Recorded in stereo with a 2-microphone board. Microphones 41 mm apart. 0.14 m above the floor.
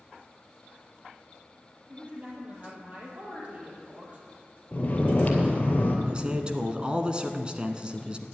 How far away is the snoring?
About 2.5 m.